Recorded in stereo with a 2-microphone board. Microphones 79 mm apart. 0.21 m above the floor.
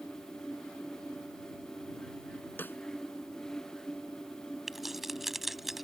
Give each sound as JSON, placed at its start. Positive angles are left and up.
{"t": 2.6, "sound": "a snare drum", "side_deg": 30}
{"t": 4.7, "sound": "keys jangling", "side_deg": -5}